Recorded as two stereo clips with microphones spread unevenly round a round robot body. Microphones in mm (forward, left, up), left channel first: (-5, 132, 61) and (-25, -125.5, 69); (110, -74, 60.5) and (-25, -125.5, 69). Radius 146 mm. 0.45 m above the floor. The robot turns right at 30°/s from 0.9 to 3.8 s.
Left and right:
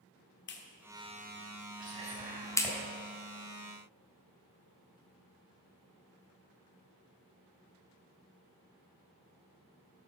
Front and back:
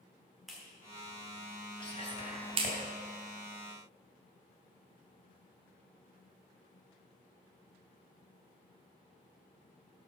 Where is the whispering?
35° right, 4 m; by 2.8 s 5° right, 4 m.